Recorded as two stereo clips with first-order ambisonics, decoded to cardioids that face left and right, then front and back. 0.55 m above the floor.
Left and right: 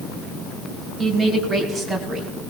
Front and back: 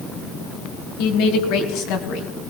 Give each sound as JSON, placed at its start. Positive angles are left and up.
{"t": 1.0, "sound": "a woman speaking", "azimuth_deg": 0, "distance_m": 2.5}